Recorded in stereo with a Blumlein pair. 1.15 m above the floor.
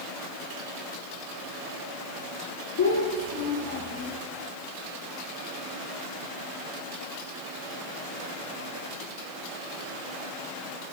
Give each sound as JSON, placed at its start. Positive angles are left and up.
{"t": 2.8, "sound": "a child speaking", "azimuth_deg": 65, "distance_m": 0.8}